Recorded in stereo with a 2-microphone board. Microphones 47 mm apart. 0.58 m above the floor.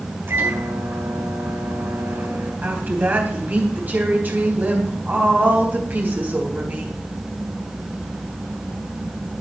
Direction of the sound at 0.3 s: 50° right (ahead or behind).